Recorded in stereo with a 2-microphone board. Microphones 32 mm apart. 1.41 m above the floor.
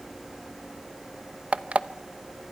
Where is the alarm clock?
45° right (ahead or behind), 0.8 m.